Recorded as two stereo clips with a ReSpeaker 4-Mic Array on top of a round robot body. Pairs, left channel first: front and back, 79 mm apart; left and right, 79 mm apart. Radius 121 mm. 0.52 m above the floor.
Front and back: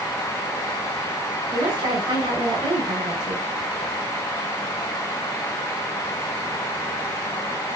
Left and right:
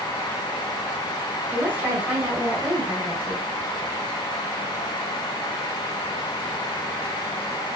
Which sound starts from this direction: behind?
A woman speaking, at 1.5 s.